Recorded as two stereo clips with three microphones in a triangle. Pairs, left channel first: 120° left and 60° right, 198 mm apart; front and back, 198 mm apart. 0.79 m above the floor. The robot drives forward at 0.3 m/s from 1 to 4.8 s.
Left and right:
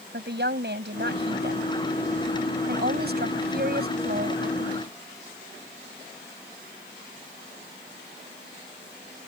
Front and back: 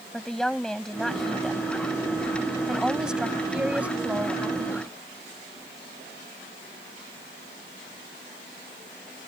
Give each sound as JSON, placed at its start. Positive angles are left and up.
{"t": 0.1, "sound": "a woman speaking", "azimuth_deg": -85}